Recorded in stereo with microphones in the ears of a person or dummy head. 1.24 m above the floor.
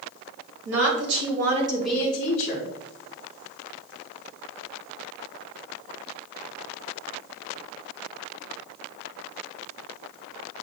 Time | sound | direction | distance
0.7 | a woman speaking | 70° right (ahead or behind) | 1.7 m